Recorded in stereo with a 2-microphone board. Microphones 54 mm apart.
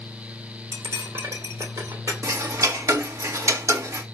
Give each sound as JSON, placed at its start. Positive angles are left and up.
{"t": 0.7, "sound": "cutlery clinking", "side_deg": -80, "distance_m": 2.5}
{"t": 2.2, "sound": "ticking", "side_deg": -70, "distance_m": 1.6}